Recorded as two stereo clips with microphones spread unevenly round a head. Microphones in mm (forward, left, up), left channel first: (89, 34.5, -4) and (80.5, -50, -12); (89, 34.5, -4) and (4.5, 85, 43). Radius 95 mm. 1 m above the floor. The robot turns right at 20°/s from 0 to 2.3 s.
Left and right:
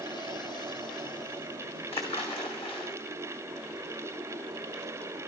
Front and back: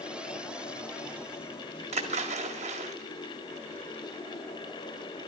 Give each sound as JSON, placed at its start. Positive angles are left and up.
{"t": 1.9, "sound": "a splash", "azimuth_deg": 135, "distance_m": 2.5}